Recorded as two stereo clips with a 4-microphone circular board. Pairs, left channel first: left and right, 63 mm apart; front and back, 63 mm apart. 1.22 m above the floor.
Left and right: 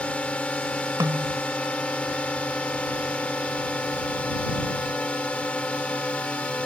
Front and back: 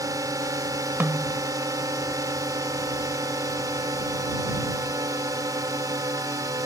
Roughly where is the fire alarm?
I don't hear a fire alarm.